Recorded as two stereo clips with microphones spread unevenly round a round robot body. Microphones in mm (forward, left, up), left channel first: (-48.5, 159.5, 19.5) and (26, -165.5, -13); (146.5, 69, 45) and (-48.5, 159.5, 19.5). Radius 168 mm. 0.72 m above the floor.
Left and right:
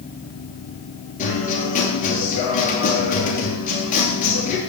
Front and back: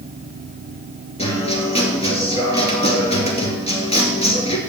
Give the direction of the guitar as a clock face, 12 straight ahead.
11 o'clock.